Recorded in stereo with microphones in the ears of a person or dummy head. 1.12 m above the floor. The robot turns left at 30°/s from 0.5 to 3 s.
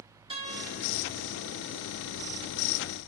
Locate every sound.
0.3 s a guitar: 30° right (ahead or behind), 1.5 m; by 0.7 s 20° right (ahead or behind), 1.5 m